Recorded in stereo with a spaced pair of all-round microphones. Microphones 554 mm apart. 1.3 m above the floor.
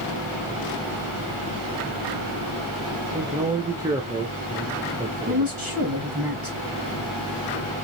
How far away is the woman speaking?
About 1.6 m.